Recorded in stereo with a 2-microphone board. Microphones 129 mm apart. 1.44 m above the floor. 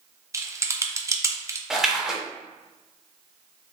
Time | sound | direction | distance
0.3 | typing on a keyboard | 20° right (ahead or behind) | 0.5 m
1.7 | a splash | 5° right (ahead or behind) | 0.7 m